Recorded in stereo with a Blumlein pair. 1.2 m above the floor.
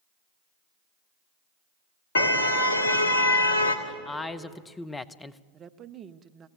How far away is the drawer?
No drawer in this recording.